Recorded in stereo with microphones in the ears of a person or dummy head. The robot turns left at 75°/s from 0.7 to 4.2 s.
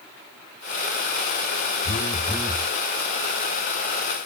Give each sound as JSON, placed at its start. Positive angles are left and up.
{"t": 1.9, "sound": "a phone buzzing", "azimuth_deg": 40, "distance_m": 0.7}